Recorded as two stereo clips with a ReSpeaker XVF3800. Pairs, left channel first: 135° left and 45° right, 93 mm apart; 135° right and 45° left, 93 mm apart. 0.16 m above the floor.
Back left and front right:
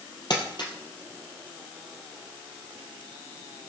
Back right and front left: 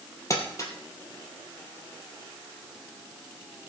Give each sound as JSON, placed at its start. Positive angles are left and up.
{"t": 0.3, "sound": "crumpling", "azimuth_deg": 170, "distance_m": 3.0}